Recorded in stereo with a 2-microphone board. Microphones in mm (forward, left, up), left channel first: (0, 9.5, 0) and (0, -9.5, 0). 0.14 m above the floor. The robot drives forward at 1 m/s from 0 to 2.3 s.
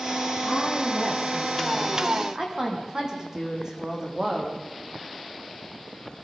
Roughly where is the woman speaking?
Right.